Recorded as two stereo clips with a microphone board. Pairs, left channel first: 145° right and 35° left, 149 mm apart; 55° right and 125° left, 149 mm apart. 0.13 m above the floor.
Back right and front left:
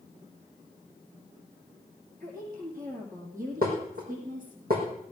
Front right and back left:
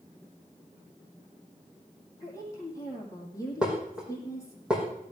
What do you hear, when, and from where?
2.2 s a woman speaking: 15° left, 5.5 m
3.6 s dishes clattering: 40° left, 4.5 m